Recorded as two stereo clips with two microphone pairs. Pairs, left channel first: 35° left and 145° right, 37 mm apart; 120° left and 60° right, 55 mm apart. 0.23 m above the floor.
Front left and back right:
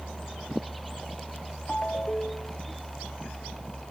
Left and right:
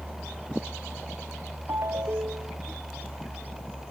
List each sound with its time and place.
1.7 s a ringtone: 35° right